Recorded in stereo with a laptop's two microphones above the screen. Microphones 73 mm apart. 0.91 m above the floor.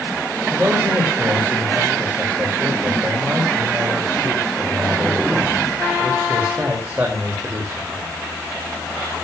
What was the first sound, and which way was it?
A man speaking, 20° right (ahead or behind).